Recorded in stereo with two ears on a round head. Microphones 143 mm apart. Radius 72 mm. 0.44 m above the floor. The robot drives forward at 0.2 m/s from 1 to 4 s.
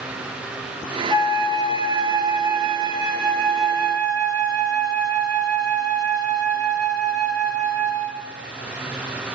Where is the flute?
35° right (ahead or behind), 2.5 m; by 8.3 s 30° right (ahead or behind), 3 m.